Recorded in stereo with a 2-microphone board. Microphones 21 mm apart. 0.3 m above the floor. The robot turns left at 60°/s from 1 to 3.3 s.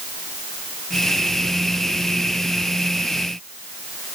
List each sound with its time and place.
Only background noise.